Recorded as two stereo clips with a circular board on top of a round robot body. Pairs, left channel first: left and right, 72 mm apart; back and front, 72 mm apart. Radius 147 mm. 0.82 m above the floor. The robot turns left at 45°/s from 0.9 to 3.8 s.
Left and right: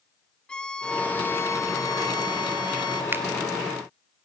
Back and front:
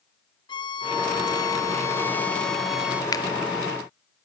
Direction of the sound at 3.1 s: 150° right.